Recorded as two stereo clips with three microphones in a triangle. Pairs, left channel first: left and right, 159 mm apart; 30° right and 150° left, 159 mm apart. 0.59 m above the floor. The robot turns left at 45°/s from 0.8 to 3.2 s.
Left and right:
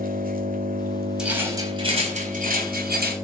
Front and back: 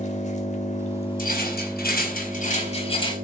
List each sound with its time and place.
0.0 s an engine running: 70° right, 1.9 m; by 3.2 s 175° right, 1.9 m
1.2 s a rattle: 5° right, 4.5 m; by 3.1 s 95° right, 4.5 m